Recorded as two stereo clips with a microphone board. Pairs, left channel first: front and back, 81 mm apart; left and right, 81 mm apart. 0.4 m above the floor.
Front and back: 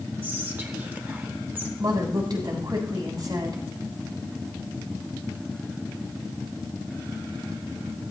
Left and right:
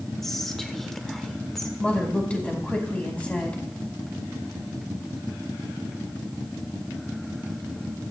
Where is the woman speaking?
165° left, 3 m.